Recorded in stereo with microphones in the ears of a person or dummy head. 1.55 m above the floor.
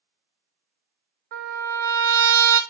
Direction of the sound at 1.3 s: 65° right (ahead or behind).